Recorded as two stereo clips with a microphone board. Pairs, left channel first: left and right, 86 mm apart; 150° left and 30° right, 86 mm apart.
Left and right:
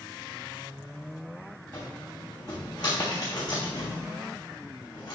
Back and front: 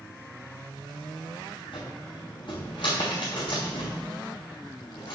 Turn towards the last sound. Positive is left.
turn(degrees=125)